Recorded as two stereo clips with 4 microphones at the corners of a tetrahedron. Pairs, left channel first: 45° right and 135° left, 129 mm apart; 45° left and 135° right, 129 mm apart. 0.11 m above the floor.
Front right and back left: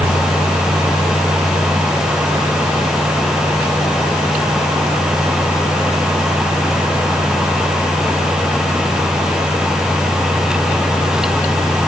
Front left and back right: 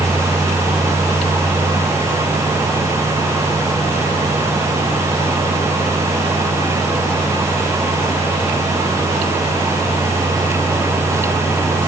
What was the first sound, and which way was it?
Only background noise.